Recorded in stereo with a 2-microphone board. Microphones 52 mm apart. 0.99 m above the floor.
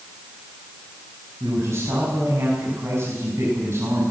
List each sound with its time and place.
1.4 s a man speaking: 55° right (ahead or behind), 7 m